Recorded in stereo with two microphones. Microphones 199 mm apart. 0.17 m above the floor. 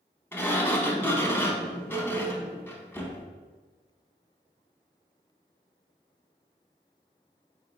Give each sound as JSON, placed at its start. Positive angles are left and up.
{"t": 0.3, "sound": "a sliding door", "side_deg": 10, "distance_m": 0.5}